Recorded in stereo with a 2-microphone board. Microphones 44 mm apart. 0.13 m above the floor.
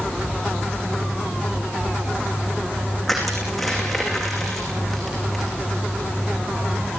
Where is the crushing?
Centre (ahead or behind), 7.5 m.